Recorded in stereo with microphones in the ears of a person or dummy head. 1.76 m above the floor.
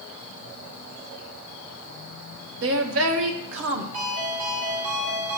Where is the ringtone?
45° right (ahead or behind), 4 m.